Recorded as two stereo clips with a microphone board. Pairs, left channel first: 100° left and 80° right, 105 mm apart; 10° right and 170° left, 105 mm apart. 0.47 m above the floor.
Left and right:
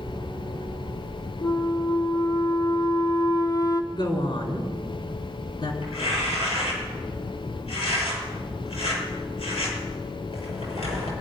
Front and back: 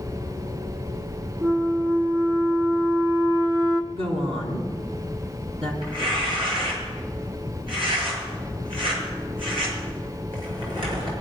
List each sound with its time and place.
1.4 s a flute: 125° left, 0.9 m
3.9 s a woman speaking: 145° left, 4 m
5.8 s tearing paper: 135° left, 6.5 m